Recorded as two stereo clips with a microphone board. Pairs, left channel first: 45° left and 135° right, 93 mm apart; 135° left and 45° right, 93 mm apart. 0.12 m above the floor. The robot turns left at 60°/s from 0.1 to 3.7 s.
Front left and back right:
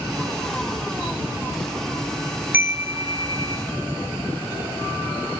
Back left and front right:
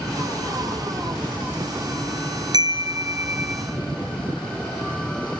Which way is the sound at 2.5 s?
70° right.